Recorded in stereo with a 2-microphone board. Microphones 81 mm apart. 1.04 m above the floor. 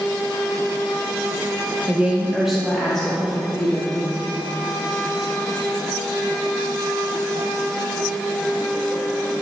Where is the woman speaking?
15° right (ahead or behind), 0.7 m; by 4.0 s 10° left (ahead or behind), 2 m.